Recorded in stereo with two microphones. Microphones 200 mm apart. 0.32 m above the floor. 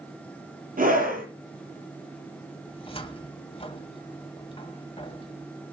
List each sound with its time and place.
0.8 s a scream: 45° right (ahead or behind), 6.5 m
2.7 s a cupboard door: 25° left (ahead or behind), 1.8 m